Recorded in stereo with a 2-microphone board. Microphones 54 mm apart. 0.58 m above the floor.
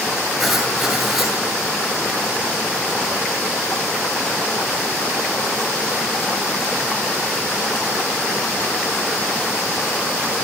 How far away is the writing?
About 8 m.